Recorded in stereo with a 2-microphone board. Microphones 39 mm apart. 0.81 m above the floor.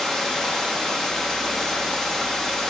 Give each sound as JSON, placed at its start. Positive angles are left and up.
{"t": 0.0, "sound": "running water", "side_deg": 10, "distance_m": 0.9}